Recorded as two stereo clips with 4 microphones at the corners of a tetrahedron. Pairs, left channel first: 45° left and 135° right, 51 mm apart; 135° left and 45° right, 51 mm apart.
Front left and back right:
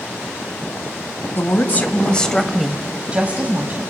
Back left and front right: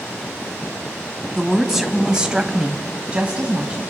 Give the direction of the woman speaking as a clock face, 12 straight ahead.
11 o'clock.